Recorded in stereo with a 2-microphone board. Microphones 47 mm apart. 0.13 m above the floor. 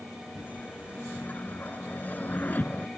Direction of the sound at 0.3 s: 40° left (ahead or behind).